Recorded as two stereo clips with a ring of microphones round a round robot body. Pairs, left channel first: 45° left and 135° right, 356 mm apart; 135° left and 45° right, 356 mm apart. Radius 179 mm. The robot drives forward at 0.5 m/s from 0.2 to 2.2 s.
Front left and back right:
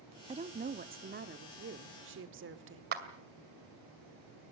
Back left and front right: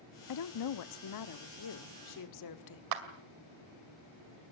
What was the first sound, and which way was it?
A woman speaking, 155° left.